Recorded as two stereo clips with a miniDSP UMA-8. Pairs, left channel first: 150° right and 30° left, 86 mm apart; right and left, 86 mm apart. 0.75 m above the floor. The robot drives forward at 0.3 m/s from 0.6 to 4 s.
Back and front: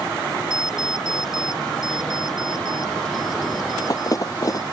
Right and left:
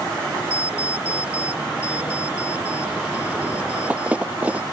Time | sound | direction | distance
0.5 | an alarm clock | 165° left | ?